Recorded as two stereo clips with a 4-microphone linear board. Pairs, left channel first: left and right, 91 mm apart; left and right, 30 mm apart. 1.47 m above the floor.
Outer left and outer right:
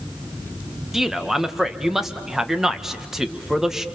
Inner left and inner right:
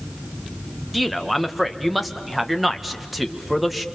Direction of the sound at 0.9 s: 5° right (ahead or behind).